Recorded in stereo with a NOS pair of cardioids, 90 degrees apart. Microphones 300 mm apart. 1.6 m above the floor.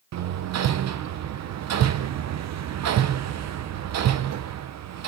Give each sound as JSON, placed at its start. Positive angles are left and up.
{"t": 0.1, "sound": "hammering", "azimuth_deg": -65, "distance_m": 1.1}